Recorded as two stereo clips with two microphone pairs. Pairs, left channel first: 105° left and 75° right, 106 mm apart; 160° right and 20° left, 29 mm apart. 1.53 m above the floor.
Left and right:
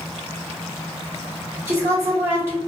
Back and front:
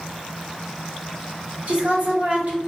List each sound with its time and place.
1.7 s a woman speaking: 10° right, 1.2 m